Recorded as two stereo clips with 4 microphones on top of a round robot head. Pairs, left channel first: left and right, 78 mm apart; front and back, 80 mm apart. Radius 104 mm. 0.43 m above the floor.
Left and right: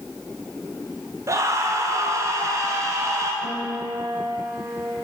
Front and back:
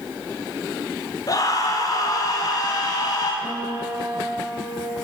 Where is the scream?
45° right, 3 m; by 3.3 s 40° right, 4 m.